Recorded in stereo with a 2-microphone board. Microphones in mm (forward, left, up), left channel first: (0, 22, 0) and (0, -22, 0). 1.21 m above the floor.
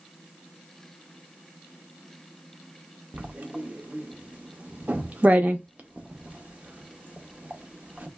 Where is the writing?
35° right (ahead or behind), 0.6 m.